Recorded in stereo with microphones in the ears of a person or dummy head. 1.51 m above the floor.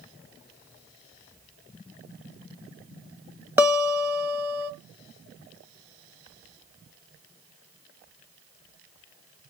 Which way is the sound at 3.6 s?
15° right (ahead or behind).